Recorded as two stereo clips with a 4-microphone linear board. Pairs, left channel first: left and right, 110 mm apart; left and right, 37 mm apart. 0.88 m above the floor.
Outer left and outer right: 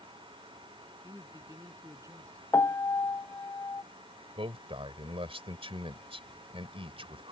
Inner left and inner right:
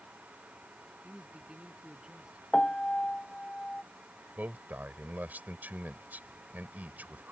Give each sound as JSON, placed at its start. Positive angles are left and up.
{"t": 1.0, "sound": "a man speaking", "side_deg": -25}
{"t": 2.5, "sound": "a piano", "side_deg": 25}
{"t": 4.4, "sound": "a man speaking", "side_deg": -55}